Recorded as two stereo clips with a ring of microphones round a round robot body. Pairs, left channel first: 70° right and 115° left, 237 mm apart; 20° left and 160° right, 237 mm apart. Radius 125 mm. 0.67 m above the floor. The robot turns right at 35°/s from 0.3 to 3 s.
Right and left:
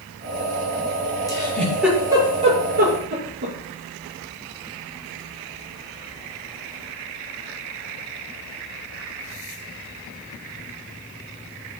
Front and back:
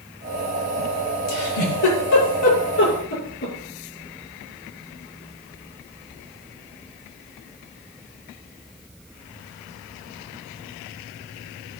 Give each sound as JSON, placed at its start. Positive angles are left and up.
{"t": 1.3, "sound": "a giggle", "azimuth_deg": 5, "distance_m": 6.5}